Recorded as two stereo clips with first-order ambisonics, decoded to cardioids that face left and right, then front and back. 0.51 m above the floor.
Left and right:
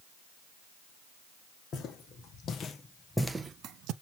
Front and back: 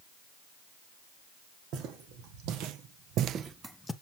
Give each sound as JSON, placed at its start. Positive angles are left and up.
{"t": 1.7, "sound": "footsteps", "azimuth_deg": 145, "distance_m": 1.8}